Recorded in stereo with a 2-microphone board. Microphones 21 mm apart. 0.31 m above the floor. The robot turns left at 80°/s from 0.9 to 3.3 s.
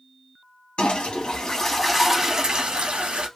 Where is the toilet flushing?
80° left, 1.0 m; by 3.3 s 110° right, 1.0 m.